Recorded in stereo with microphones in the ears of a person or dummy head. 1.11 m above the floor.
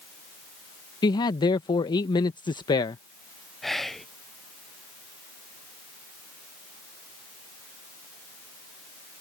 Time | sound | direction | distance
1.0 | a man speaking | 25° left (ahead or behind) | ?
3.6 | whispering | 5° left (ahead or behind) | ?